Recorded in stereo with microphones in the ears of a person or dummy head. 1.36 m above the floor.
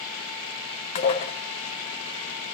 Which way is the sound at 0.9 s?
25° left (ahead or behind).